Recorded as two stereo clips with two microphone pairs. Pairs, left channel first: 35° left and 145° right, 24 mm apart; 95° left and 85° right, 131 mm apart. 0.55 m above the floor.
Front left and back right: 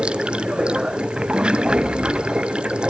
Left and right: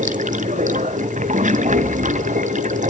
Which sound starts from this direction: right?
Running water, at 0.0 s.